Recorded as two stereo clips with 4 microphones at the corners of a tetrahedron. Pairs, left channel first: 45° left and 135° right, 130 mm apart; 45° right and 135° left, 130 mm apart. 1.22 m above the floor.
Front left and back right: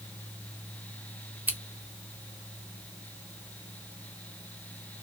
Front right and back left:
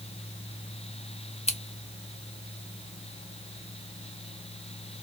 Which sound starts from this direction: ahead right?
Scissors, at 1.5 s.